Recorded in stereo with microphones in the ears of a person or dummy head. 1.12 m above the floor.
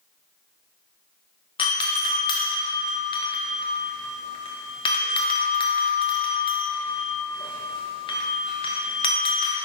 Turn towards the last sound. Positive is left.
turn(degrees=25)  # may be behind; listen again after turning